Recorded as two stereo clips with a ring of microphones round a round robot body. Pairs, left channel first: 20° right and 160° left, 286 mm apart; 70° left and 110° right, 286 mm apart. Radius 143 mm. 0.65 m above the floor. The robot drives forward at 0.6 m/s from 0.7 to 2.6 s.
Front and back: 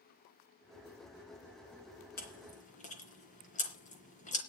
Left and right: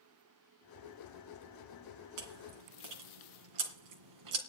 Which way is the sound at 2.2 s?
85° right.